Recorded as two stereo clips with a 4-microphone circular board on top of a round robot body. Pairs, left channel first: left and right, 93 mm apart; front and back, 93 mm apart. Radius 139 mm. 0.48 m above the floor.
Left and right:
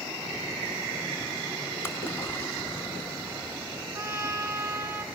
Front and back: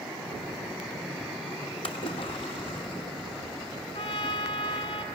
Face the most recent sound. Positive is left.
turn(degrees=-15)